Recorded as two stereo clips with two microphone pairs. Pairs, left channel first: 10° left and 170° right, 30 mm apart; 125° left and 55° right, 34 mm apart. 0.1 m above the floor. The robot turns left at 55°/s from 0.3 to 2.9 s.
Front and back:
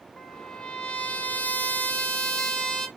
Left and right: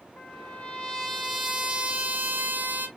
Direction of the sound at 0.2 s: 90° left.